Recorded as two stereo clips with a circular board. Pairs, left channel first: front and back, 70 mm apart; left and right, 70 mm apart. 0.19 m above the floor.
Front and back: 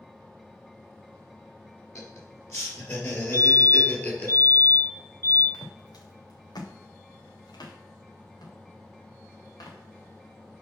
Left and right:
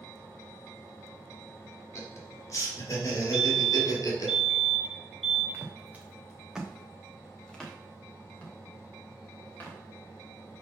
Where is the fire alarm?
20° left, 3 m.